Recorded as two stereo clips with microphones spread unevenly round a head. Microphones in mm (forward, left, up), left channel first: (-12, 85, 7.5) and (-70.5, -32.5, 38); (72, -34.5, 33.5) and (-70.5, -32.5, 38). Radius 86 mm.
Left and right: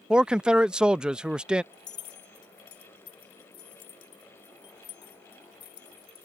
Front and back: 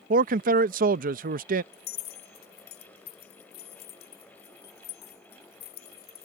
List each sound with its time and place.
0.1 s a man speaking: 155° left
1.7 s keys jangling: 5° left